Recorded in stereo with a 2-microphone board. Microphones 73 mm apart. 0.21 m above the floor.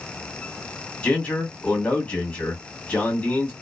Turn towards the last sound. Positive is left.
turn(degrees=20)  # may be behind; listen again after turning